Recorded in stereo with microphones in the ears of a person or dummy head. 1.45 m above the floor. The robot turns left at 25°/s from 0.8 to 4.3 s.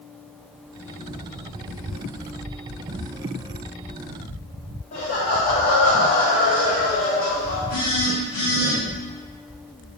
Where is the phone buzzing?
40° left (ahead or behind), 1.8 m.